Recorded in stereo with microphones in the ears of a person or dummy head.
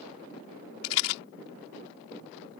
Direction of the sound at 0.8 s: 85° left.